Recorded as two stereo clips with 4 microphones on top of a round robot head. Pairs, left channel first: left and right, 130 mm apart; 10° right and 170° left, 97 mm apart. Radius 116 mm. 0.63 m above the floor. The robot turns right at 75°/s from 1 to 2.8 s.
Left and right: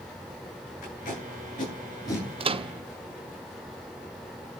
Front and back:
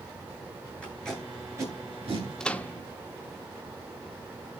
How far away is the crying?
I don't hear crying.